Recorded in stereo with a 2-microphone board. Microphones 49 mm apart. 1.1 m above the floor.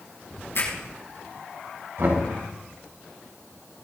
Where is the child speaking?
No child speaking in this recording.